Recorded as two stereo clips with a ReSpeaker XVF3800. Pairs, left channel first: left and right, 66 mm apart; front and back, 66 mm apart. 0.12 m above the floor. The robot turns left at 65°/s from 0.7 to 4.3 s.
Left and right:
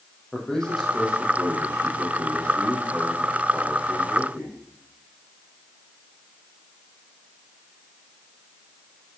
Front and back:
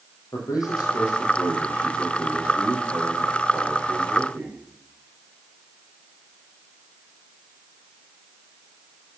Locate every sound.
0.3 s a man speaking: 5° left, 4 m; by 4.6 s 135° left, 4 m